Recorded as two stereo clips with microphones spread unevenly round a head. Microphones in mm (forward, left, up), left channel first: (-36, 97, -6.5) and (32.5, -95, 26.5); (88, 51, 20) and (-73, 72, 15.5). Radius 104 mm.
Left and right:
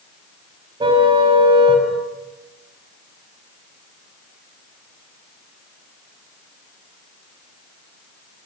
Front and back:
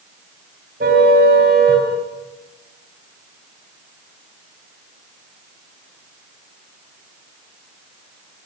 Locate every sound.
0.8 s a car horn: 135° right, 4.5 m